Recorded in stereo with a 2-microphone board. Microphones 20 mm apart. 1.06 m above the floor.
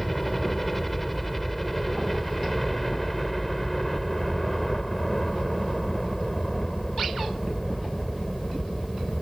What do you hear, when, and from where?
0.0 s a helicopter: 5° left (ahead or behind); by 9.2 s 15° left (ahead or behind)